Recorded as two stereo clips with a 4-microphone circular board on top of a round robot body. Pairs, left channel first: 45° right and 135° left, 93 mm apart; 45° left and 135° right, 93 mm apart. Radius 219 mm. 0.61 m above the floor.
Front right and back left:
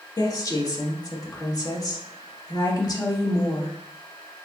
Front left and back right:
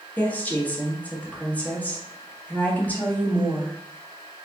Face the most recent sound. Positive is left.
turn(degrees=-25)